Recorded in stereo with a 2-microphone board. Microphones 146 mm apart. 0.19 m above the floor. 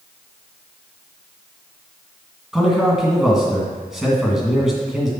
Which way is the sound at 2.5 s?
Centre (ahead or behind).